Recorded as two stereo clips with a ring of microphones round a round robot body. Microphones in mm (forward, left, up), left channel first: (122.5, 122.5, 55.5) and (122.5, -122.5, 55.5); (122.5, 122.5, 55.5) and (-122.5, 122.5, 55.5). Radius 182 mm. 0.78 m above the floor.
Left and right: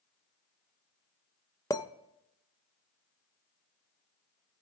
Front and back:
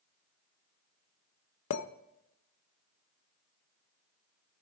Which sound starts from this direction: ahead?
A clink, at 1.7 s.